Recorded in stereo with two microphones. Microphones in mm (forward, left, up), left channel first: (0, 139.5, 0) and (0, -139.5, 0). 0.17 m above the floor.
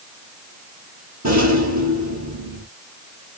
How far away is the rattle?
About 2 m.